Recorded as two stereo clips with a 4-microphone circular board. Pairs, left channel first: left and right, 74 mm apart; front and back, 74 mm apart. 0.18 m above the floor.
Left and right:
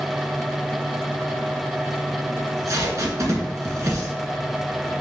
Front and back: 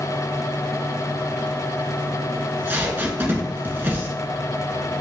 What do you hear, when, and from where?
2.4 s tape being pulled: 125° right, 1.1 m